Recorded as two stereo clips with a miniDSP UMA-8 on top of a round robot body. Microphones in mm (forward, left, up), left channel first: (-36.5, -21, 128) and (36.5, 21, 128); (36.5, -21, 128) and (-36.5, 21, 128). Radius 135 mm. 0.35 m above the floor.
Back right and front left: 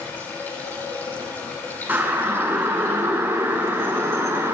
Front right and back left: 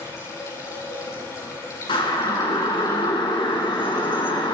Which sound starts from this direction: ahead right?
A siren, at 1.9 s.